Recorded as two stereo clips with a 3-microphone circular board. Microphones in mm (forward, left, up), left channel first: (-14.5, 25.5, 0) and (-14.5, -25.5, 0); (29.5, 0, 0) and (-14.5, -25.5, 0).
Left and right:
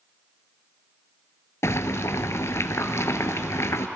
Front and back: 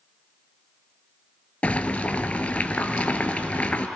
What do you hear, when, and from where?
1.6 s boiling: 90° left, 0.6 m